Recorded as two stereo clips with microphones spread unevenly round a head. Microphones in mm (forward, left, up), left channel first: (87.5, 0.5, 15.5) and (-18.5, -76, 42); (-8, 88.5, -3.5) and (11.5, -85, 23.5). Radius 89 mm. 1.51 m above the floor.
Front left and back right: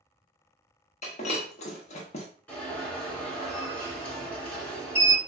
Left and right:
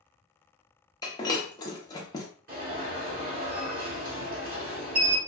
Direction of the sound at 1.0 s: 30° left.